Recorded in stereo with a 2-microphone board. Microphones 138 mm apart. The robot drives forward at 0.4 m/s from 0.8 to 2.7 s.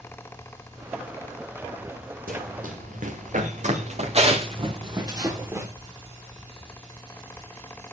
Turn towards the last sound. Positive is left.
turn(degrees=-20)  # may be behind; listen again after turning